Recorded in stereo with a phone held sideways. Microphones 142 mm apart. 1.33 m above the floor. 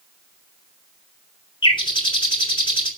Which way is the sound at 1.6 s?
35° left (ahead or behind).